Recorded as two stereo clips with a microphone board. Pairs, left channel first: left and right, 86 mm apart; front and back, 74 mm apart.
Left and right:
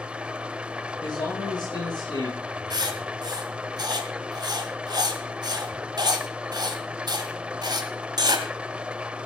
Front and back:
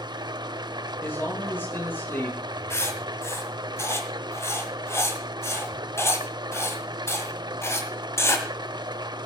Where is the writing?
55° right, 1.9 m.